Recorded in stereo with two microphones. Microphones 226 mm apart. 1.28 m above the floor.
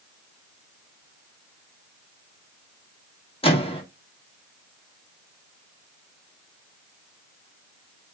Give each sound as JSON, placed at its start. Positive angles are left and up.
{"t": 3.4, "sound": "a microwave", "side_deg": 25, "distance_m": 0.9}